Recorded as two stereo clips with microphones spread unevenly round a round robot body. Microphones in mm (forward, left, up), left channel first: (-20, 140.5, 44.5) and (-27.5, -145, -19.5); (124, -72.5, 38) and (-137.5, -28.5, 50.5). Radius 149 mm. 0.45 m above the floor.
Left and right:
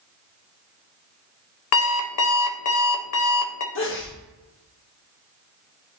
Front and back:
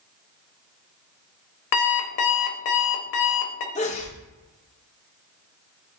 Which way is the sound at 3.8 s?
40° left.